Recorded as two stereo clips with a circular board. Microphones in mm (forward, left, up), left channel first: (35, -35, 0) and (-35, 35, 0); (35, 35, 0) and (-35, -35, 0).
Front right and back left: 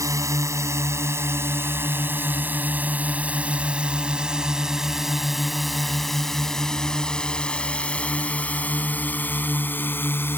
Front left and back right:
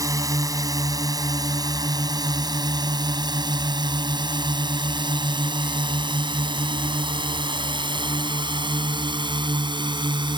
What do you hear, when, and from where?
0.0 s a drone: straight behind; by 10.4 s 110° right